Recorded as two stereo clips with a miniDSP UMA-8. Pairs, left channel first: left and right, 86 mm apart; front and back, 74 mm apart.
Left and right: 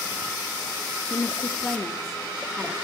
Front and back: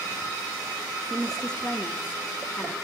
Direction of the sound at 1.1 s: 90° left.